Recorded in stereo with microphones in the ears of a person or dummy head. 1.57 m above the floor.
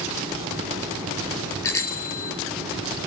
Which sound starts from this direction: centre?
A bicycle bell, at 1.6 s.